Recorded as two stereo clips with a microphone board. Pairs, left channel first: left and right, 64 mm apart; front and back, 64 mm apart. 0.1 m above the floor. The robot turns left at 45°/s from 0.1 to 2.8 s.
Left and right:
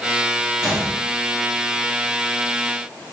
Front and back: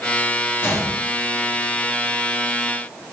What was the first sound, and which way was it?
A gunshot, 20° right.